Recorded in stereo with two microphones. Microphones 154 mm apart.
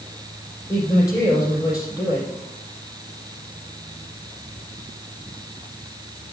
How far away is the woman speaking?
About 5 m.